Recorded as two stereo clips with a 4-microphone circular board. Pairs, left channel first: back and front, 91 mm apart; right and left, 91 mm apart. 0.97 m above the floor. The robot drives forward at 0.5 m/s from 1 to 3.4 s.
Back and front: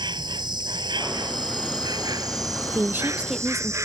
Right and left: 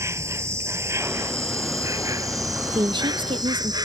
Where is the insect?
30° left; by 3.9 s 50° left.